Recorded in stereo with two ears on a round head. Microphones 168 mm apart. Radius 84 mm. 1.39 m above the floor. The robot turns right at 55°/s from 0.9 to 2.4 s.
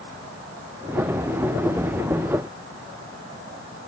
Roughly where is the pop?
I don't hear a pop.